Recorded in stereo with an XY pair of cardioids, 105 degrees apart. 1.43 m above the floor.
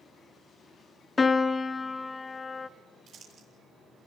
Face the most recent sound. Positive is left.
turn(degrees=-70)